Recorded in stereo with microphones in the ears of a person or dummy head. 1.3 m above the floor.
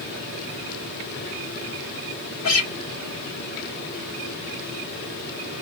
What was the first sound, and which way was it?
A guitar, 65° left (ahead or behind).